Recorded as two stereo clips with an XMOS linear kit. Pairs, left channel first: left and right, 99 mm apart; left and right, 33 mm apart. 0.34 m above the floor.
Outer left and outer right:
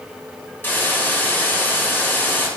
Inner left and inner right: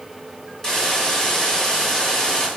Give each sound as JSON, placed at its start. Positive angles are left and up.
{"t": 0.6, "sound": "a hiss", "side_deg": 20, "distance_m": 1.6}